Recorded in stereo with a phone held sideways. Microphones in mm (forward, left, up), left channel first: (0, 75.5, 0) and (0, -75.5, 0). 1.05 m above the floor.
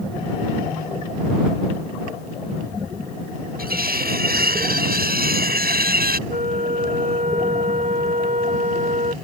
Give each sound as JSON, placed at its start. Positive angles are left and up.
{"t": 3.6, "sound": "cutlery clinking", "side_deg": -75}
{"t": 6.3, "sound": "a flute", "side_deg": -65}